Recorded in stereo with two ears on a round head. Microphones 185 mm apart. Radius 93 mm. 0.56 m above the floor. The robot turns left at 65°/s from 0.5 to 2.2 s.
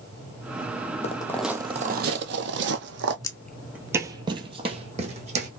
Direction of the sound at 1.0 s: 35° left (ahead or behind).